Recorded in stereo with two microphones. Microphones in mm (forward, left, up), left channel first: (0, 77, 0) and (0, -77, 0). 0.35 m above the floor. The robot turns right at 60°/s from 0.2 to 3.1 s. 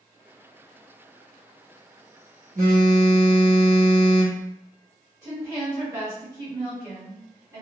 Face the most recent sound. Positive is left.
turn(degrees=-25)  # may be behind; listen again after turning